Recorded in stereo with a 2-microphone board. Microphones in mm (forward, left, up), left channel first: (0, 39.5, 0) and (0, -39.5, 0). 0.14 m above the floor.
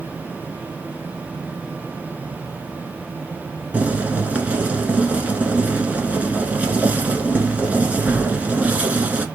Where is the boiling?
20° right (ahead or behind), 1.1 m.